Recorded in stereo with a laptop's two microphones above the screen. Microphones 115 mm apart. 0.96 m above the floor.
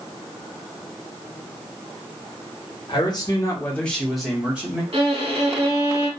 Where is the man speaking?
45° left (ahead or behind), 1.0 m; by 4.8 s 15° right (ahead or behind), 1.5 m.